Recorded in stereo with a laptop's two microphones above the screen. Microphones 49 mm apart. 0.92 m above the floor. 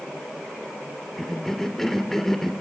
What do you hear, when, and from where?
1.2 s a cough: 10° left (ahead or behind), 2.5 m